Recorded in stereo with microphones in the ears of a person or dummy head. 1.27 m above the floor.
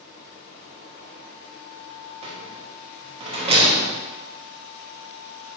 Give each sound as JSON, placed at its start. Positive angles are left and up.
{"t": 2.2, "sound": "a rattle", "side_deg": -25, "distance_m": 0.8}